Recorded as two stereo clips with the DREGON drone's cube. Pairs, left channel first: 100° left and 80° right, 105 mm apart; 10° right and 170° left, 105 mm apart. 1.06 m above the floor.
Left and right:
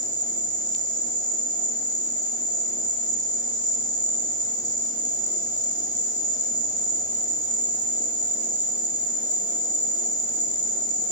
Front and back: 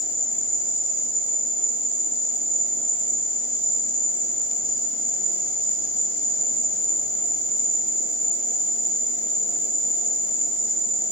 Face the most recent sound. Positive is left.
turn(degrees=150)